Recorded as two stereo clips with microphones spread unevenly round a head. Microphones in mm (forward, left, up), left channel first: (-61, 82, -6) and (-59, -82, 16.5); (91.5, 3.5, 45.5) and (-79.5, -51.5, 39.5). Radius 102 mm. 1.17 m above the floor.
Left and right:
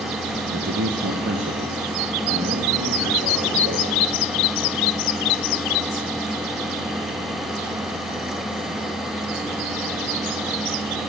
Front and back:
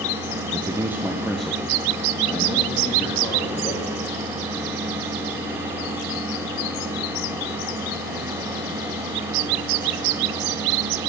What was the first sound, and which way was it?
A man speaking, 105° right.